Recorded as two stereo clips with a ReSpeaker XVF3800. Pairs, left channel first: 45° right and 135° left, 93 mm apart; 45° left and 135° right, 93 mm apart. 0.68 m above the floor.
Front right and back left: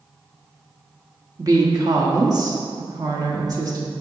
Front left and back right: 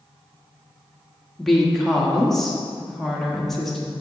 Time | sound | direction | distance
1.4 | a woman speaking | 130° left | 1.3 m